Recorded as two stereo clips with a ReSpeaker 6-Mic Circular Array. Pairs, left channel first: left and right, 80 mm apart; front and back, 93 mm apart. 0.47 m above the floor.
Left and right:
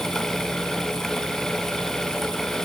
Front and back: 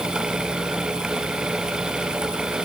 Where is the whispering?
I don't hear whispering.